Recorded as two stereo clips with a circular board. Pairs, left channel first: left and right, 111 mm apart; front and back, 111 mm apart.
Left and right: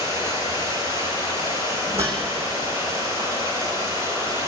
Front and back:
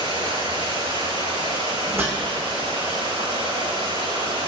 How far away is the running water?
About 5.5 m.